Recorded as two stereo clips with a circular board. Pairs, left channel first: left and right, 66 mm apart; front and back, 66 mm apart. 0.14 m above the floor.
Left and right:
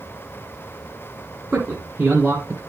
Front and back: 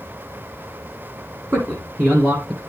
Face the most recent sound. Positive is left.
turn(degrees=-140)